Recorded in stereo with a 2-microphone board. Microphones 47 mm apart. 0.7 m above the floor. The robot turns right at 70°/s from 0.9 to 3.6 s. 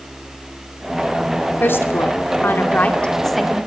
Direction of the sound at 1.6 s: 45° left (ahead or behind).